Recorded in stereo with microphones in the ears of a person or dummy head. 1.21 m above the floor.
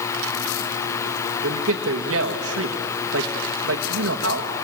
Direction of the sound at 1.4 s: 75° right (ahead or behind).